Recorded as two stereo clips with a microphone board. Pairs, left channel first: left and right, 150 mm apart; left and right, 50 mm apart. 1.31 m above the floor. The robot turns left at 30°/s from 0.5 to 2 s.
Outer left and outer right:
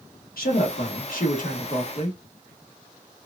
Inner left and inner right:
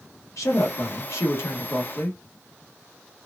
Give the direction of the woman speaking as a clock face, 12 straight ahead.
9 o'clock.